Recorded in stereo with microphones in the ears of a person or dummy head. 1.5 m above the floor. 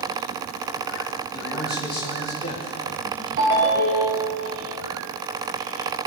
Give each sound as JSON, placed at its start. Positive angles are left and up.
{"t": 1.3, "sound": "a man speaking", "side_deg": 20, "distance_m": 3.0}
{"t": 3.4, "sound": "a ringtone", "side_deg": -50, "distance_m": 2.5}